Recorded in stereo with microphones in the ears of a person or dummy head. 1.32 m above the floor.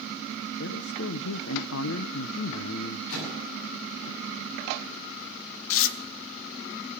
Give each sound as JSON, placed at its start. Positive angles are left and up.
{"t": 0.6, "sound": "a man speaking", "side_deg": 75, "distance_m": 0.7}
{"t": 3.1, "sound": "a microwave", "side_deg": 75, "distance_m": 7.0}
{"t": 5.7, "sound": "tearing paper", "side_deg": 65, "distance_m": 0.8}